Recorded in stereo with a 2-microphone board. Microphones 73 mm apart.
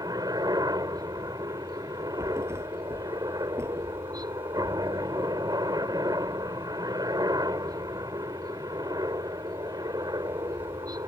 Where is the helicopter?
65° right (ahead or behind).